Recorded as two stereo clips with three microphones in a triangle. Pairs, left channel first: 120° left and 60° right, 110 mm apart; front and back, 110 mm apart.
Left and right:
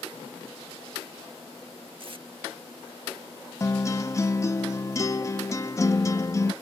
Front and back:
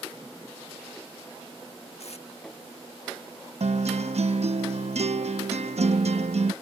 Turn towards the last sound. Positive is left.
turn(degrees=180)